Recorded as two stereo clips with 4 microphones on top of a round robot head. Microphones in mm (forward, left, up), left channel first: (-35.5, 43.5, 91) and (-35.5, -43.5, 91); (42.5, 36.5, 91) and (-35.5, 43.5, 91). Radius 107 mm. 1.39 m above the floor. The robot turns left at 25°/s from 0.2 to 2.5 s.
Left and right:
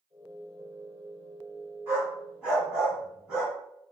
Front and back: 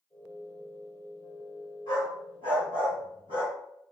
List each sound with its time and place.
1.9 s a dog barking: 155° right, 1.7 m; by 3.5 s 175° right, 1.7 m